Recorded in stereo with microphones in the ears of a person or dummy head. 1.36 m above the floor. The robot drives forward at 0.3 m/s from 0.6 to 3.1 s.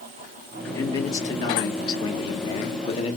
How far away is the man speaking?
About 1.5 m.